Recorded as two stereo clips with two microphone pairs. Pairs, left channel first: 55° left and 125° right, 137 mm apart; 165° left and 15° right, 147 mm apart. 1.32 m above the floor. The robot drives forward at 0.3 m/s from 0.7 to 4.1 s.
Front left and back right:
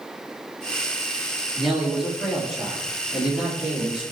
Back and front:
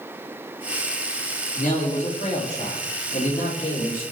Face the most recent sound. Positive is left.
turn(degrees=150)